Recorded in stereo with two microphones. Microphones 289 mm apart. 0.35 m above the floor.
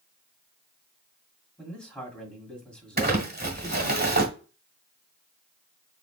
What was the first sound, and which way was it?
A man speaking, 5° left (ahead or behind).